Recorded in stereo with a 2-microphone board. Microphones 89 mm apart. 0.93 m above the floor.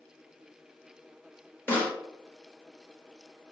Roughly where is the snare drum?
Left.